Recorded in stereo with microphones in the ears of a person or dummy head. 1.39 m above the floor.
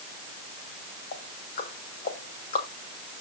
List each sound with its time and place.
1.1 s ticking: 45° left (ahead or behind), 2.5 m